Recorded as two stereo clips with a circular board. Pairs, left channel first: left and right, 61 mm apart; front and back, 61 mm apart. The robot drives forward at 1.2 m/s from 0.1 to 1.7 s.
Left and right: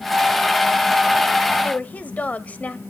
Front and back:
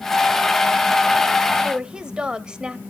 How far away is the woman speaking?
About 1.0 m.